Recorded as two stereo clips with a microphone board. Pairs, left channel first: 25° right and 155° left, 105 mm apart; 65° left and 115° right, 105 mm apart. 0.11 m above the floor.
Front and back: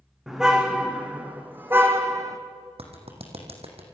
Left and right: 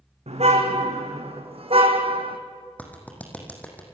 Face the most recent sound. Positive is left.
turn(degrees=140)